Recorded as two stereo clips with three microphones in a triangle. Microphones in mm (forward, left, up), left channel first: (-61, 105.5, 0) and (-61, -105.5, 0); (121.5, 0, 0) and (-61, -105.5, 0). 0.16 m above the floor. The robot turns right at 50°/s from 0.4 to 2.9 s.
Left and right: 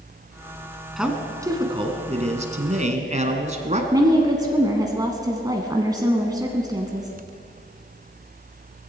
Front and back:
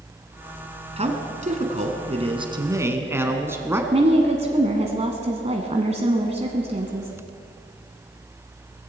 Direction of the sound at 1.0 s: 175° right.